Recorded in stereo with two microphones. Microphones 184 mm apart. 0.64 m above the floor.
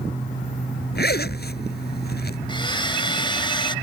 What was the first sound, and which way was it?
A zipper, 65° left (ahead or behind).